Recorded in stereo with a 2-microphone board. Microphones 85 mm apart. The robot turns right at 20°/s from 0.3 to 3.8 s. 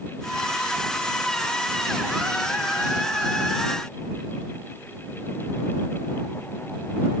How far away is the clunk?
No clunk in this recording.